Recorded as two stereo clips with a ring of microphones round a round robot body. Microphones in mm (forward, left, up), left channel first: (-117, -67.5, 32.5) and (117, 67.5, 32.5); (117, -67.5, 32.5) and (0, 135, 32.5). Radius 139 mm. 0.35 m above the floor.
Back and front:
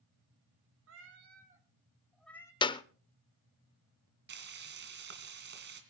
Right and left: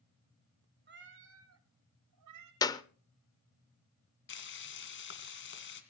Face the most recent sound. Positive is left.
turn(degrees=-20)